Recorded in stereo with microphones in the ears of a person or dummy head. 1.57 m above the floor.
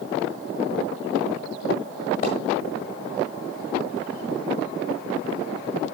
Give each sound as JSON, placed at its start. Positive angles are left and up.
{"t": 2.2, "sound": "a splash", "side_deg": 30, "distance_m": 1.5}